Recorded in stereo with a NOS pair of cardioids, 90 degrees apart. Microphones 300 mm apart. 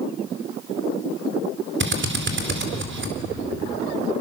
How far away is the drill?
About 4 m.